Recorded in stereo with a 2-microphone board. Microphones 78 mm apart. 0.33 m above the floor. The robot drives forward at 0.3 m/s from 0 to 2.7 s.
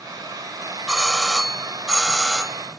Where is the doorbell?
5° right (ahead or behind).